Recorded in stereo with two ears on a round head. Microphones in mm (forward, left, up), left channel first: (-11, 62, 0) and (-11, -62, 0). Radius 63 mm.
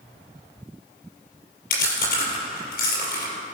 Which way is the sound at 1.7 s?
85° left.